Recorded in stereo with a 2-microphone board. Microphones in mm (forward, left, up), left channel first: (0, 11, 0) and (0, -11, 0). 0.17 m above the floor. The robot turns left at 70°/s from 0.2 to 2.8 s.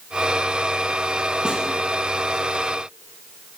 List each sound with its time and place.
1.4 s a snare drum: 45° right (ahead or behind), 1.7 m